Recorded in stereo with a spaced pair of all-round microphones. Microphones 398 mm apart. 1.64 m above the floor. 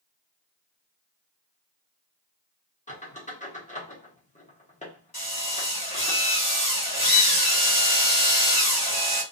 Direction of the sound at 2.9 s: 20° left (ahead or behind).